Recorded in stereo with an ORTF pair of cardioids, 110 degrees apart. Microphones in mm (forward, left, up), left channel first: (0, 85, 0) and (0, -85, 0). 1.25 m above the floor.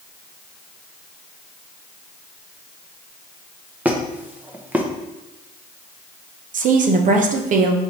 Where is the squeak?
10° right, 0.7 m.